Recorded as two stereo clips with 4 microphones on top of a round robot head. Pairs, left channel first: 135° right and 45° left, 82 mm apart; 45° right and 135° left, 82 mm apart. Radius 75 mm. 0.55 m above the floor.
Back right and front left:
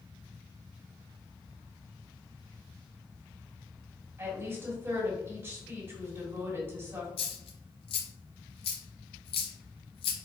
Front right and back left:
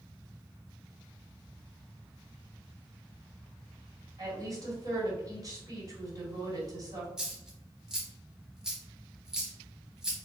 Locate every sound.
4.2 s a woman speaking: 105° left, 1.9 m
7.2 s a dropped coin: 145° right, 0.6 m